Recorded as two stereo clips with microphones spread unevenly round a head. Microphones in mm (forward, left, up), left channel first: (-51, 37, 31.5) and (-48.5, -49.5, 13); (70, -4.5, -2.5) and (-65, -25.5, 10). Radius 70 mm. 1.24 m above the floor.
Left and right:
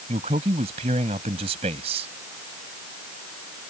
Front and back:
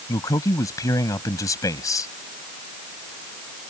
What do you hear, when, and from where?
0.1 s a man speaking: 60° right